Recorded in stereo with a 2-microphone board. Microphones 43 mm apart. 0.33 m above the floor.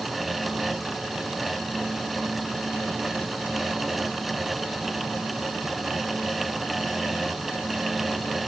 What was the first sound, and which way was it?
Only background noise.